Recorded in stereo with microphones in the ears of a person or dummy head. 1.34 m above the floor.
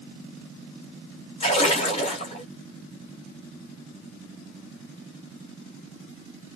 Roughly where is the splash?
Left.